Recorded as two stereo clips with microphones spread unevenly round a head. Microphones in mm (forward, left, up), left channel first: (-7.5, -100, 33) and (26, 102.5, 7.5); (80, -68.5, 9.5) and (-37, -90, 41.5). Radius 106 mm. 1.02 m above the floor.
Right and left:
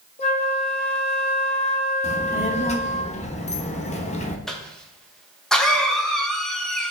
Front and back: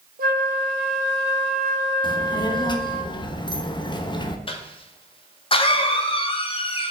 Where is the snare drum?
No snare drum in this recording.